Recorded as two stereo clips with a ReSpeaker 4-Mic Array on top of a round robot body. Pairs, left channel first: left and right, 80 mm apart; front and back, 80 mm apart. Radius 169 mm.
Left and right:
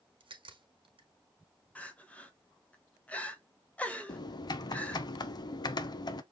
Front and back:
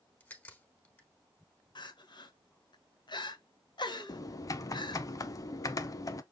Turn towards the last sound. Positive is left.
turn(degrees=50)